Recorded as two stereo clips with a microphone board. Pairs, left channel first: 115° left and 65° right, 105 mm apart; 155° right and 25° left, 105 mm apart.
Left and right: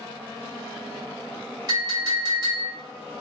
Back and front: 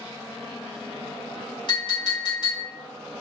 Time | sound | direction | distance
1.7 | a clink | 120° right | 2.5 m